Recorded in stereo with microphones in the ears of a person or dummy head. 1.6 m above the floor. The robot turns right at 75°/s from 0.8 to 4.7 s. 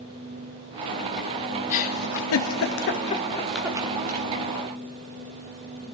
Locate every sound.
1.7 s a giggle: 35° left (ahead or behind), 0.8 m; by 4.3 s 50° right (ahead or behind), 0.8 m